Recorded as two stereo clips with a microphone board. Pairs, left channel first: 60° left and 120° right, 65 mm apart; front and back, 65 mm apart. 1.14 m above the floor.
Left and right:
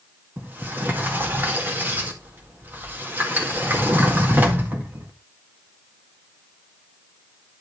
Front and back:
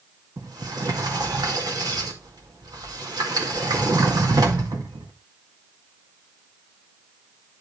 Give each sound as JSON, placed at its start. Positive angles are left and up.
{"t": 0.4, "sound": "a sliding door", "azimuth_deg": 180, "distance_m": 2.0}